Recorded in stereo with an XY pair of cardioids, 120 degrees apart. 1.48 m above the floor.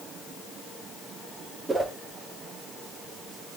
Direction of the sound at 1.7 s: 20° right.